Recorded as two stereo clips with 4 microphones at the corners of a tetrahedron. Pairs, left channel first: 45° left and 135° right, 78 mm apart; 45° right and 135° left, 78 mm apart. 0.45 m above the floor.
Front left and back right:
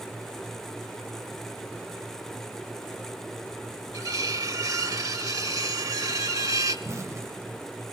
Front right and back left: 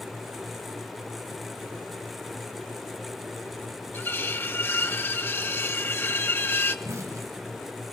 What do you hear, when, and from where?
3.9 s cutlery clinking: 100° right, 1.3 m
6.8 s an explosion: straight behind, 1.4 m